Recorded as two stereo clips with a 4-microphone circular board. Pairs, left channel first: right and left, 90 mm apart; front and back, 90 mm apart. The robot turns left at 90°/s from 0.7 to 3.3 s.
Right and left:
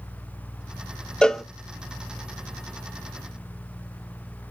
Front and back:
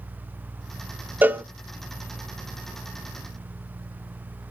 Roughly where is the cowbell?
Behind right.